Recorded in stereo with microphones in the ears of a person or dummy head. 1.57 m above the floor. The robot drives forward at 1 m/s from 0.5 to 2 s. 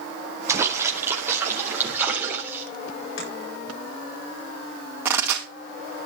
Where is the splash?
15° right (ahead or behind), 2 m; by 2.6 s 10° right (ahead or behind), 3.5 m.